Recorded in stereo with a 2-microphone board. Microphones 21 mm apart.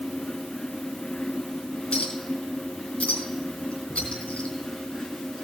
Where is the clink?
70° left (ahead or behind), 4 m.